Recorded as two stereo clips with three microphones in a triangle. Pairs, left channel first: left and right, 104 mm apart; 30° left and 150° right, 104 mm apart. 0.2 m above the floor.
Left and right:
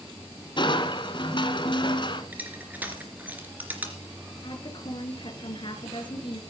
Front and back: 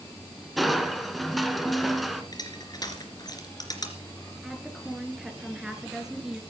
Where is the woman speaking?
125° left, 2.5 m.